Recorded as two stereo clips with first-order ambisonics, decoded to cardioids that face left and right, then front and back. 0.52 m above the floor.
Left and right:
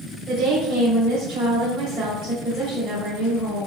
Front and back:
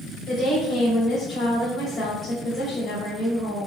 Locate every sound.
0.3 s a woman speaking: 45° right, 2.0 m